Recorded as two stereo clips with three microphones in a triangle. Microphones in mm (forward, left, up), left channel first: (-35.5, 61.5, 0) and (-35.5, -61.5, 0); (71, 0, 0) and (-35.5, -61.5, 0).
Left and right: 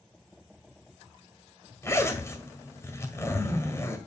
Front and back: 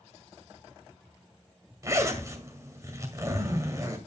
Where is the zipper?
155° left, 1.8 m.